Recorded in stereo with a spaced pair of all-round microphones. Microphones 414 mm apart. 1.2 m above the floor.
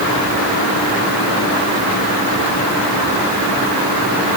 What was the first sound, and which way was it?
Only background noise.